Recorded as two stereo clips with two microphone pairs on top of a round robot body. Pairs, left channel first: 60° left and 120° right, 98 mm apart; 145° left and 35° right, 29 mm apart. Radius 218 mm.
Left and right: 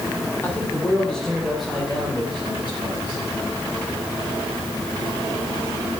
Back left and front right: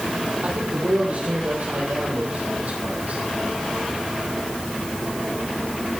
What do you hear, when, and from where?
0.4 s a man speaking: 10° right, 3.5 m; by 3.2 s 50° right, 5.5 m